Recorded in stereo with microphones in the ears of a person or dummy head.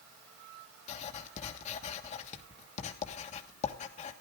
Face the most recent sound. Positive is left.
turn(degrees=40)  # may be behind; listen again after turning